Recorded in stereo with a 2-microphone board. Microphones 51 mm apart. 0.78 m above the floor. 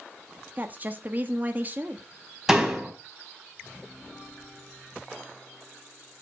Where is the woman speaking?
35° right (ahead or behind), 1.4 m.